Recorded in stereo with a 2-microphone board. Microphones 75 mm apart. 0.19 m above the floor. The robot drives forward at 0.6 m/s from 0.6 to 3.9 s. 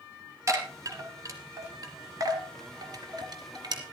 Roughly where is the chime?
Right.